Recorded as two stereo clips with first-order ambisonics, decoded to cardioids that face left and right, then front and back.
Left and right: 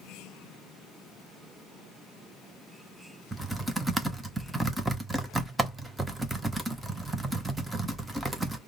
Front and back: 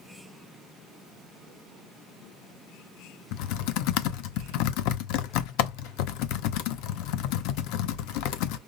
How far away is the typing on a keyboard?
About 0.6 m.